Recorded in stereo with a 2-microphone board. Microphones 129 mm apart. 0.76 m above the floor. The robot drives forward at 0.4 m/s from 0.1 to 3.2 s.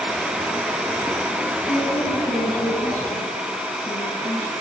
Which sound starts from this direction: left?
A woman speaking, at 1.6 s.